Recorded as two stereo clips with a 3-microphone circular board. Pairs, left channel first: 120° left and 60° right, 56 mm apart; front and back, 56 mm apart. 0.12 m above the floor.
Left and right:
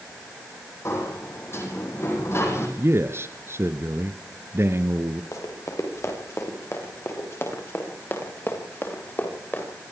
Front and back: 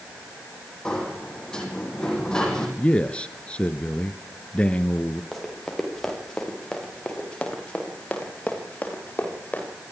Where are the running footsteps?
90° left, 7 m; by 9.7 s 65° left, 8 m.